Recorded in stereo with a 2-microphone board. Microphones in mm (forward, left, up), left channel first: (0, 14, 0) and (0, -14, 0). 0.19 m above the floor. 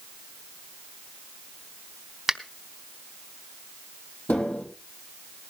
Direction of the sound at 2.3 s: 15° right (ahead or behind).